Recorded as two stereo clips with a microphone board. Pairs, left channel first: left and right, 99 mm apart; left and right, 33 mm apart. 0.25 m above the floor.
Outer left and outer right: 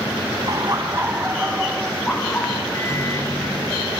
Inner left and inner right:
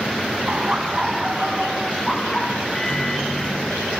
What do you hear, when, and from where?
0.5 s laughter: 45° right (ahead or behind), 1.5 m; by 2.6 s 25° left (ahead or behind), 2 m
2.7 s a microwave: 30° left (ahead or behind), 4 m